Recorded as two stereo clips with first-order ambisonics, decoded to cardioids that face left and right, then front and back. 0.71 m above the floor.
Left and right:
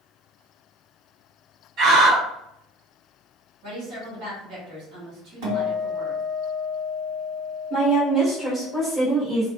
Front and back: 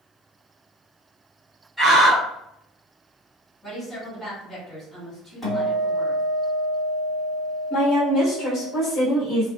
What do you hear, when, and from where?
1.8 s a scream: 105° right, 1.5 m
3.6 s a woman speaking: 80° right, 2.0 m
5.4 s a guitar: 85° right, 2.0 m
7.7 s a woman speaking: 20° right, 1.1 m